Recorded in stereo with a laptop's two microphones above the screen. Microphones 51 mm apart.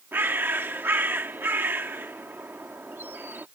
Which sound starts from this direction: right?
A bird, at 0.1 s.